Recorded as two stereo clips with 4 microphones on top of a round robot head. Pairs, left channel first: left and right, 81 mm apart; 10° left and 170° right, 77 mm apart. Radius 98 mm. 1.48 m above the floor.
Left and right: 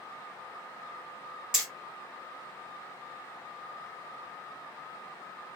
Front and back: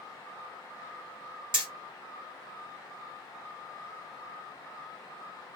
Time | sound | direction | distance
1.5 | hammering | 170° right | 0.9 m